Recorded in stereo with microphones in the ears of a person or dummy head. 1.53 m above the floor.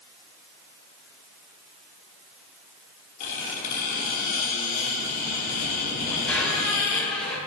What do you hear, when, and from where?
3.2 s a squeak: 50° left (ahead or behind), 2.5 m
6.0 s a squeak: 5° left (ahead or behind), 2 m